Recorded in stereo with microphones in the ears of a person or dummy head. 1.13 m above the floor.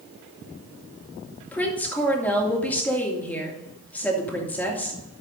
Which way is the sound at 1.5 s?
10° left (ahead or behind).